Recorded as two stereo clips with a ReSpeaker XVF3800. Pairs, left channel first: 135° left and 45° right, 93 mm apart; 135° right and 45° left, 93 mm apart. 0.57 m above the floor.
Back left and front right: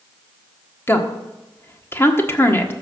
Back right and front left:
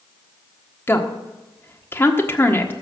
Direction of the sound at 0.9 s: Straight behind.